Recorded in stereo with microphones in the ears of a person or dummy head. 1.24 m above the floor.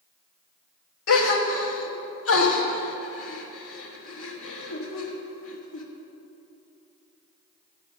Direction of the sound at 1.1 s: 80° left.